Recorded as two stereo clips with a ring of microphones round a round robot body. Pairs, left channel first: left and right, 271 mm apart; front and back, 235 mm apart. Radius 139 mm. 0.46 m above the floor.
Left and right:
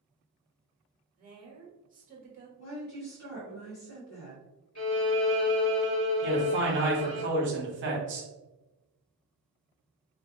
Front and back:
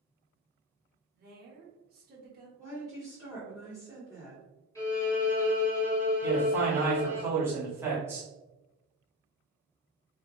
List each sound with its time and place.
1.1 s a woman speaking: 140° right, 1.5 m
2.6 s a woman speaking: 85° left, 1.8 m
4.8 s a violin: 75° left, 1.9 m
6.2 s a man speaking: 105° right, 1.2 m